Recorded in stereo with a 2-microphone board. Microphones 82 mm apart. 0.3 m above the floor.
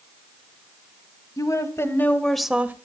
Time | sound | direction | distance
1.4 | a woman speaking | 45° left (ahead or behind) | 1.7 m